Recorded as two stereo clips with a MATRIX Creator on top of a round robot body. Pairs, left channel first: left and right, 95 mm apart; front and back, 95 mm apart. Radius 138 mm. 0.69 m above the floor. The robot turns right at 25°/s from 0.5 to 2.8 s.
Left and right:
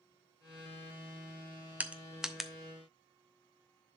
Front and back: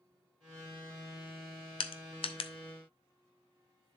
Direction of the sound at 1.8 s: 15° right.